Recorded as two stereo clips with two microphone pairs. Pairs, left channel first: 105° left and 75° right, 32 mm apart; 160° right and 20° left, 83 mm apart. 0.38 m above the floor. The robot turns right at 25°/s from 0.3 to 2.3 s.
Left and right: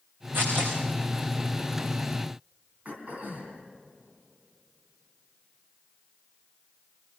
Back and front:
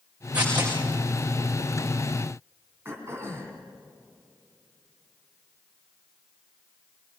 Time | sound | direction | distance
0.3 | tearing paper | 60° right | 7 m
2.9 | throat clearing | 35° right | 3 m